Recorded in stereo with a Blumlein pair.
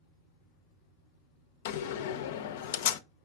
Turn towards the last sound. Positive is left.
turn(degrees=55)